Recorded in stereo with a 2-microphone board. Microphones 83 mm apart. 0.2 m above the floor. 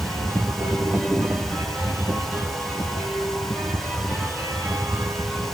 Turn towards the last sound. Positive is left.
No sound to turn to.